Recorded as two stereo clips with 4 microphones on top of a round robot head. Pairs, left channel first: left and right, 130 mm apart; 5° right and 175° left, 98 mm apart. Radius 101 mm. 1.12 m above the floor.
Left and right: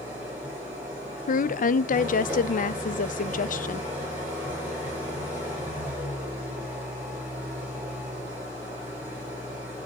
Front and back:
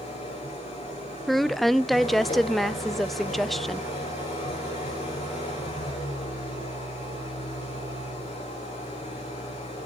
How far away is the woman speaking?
About 0.9 m.